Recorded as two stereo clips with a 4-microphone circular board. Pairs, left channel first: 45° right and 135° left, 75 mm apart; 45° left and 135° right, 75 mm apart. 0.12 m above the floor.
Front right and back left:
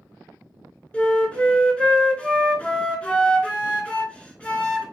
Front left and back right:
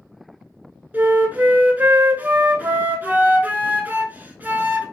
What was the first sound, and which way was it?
A flute, 100° right.